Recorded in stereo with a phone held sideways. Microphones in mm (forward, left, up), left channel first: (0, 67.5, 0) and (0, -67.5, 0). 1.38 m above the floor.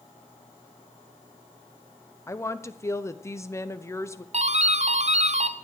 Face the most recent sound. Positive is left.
turn(degrees=-55)  # may be behind; listen again after turning